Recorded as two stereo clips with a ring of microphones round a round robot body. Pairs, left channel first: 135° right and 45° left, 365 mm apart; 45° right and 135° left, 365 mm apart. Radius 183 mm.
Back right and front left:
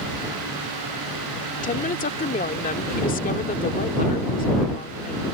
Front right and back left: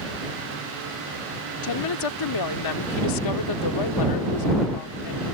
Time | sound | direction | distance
1.6 | a woman speaking | 70° right | ?